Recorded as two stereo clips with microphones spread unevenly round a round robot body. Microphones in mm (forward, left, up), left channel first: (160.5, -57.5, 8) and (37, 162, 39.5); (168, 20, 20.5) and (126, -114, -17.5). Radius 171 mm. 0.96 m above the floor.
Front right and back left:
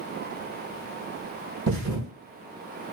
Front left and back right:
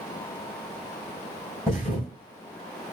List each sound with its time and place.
1.7 s a thud: 160° left, 1.9 m